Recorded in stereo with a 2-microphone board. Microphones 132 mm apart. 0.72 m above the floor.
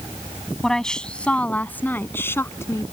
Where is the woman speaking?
5° left (ahead or behind); by 2.9 s 20° left (ahead or behind).